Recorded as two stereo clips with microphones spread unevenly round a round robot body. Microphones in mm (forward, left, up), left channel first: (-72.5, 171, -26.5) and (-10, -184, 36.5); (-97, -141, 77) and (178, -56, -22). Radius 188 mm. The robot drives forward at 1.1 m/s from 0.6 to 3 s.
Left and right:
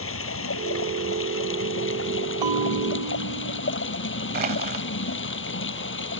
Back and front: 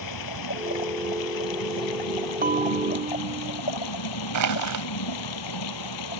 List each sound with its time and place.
0.0 s running water: 155° left; by 6.2 s 160° left
2.4 s a bell: 45° right; by 3.6 s 50° right
4.3 s crushing: 10° right